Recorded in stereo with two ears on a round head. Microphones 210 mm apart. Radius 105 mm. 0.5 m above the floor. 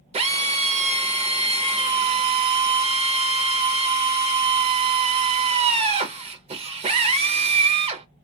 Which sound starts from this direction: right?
A drill, at 0.1 s.